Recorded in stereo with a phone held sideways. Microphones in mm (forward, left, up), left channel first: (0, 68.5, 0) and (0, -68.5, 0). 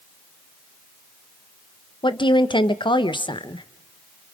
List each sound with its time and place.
2.0 s a woman speaking: 35° left (ahead or behind), 1.0 m